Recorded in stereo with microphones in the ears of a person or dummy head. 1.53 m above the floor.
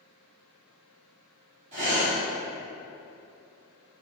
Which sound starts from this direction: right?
Breathing, at 1.7 s.